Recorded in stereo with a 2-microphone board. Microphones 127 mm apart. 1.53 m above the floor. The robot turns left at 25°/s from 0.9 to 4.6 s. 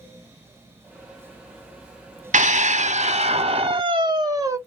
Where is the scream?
100° right, 0.8 m; by 4.6 s 155° right, 0.8 m.